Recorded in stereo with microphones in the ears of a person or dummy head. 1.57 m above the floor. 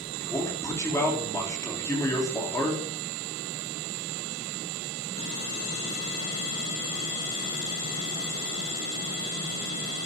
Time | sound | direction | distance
0.2 | a man speaking | 10° left (ahead or behind) | 3.5 m